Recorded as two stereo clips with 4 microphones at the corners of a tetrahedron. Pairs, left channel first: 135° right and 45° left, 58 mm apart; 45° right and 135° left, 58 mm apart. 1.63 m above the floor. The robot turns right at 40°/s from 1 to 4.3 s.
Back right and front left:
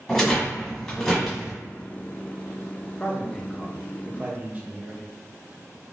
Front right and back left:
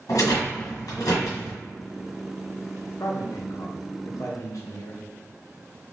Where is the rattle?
55° right, 1.6 m; by 1.5 s 30° right, 1.6 m.